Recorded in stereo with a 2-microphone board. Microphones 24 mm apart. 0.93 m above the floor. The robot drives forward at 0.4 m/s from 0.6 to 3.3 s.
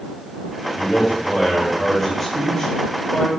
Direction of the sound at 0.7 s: 5° left (ahead or behind).